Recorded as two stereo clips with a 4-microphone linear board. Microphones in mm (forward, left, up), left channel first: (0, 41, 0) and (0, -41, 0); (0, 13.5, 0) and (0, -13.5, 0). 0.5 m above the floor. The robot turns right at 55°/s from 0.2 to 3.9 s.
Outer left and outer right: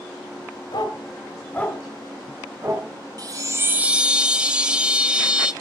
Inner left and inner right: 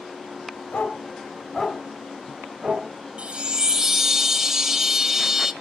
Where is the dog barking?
70° left (ahead or behind), 1.4 m; by 2.9 s 50° right (ahead or behind), 1.4 m.